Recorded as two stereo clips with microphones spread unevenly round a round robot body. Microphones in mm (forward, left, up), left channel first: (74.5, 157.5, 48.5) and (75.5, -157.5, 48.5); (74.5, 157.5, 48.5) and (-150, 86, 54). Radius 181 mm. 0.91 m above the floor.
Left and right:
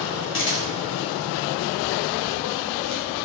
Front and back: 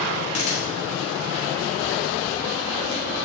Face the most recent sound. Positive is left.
turn(degrees=40)